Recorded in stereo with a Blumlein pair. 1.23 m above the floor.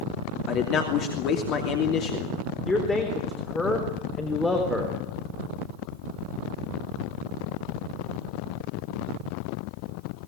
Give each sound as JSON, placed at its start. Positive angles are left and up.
{"t": 0.5, "sound": "a man speaking", "azimuth_deg": 35, "distance_m": 2.5}
{"t": 2.6, "sound": "a man speaking", "azimuth_deg": 10, "distance_m": 3.5}